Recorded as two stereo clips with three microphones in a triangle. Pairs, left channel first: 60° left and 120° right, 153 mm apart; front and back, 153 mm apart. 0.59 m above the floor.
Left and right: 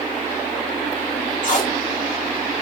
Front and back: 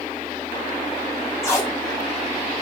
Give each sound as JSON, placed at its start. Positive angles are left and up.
{"t": 1.4, "sound": "tape being pulled", "azimuth_deg": 65, "distance_m": 1.3}